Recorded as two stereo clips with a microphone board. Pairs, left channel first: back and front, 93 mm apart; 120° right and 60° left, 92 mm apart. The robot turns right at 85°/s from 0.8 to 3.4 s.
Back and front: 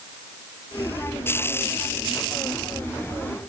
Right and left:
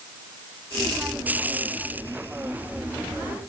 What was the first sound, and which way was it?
Only background noise.